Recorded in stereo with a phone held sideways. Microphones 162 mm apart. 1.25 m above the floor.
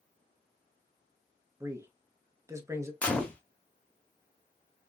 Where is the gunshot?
5° left (ahead or behind), 0.9 m.